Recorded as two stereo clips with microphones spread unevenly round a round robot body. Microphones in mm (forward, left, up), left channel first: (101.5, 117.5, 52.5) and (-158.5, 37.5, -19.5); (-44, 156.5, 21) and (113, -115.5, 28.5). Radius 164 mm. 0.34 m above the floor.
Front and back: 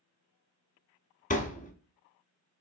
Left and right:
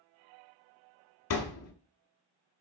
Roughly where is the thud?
Left.